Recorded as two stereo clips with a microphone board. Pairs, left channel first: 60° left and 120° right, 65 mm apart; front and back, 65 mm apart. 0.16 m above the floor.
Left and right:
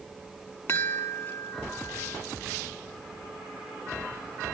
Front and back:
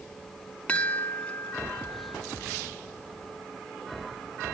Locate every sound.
0.7 s a chime: 55° left, 0.6 m